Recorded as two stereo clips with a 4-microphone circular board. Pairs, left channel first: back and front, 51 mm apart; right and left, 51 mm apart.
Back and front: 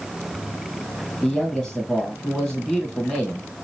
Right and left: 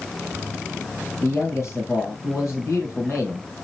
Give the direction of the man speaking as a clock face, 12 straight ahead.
3 o'clock.